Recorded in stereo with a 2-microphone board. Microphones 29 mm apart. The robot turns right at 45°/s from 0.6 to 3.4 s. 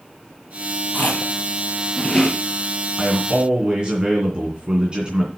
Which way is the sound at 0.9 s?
70° left (ahead or behind).